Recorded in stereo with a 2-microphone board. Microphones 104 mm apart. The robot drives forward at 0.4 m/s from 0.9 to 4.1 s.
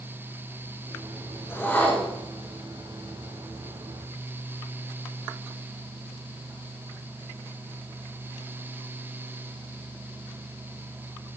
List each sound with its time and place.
1.5 s a whoosh: 20° left (ahead or behind), 1.0 m